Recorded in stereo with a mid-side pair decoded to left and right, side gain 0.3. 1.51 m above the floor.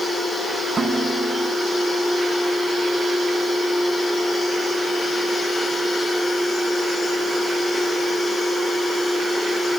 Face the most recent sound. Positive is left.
turn(degrees=-50)